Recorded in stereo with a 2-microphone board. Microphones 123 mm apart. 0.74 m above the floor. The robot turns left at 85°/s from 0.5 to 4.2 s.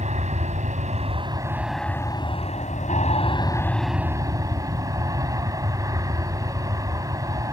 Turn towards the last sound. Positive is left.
turn(degrees=-30)